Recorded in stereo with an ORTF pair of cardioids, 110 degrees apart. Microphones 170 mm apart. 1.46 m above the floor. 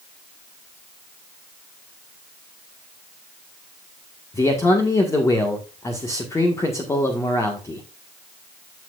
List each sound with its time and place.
4.3 s a man speaking: 20° left, 1.6 m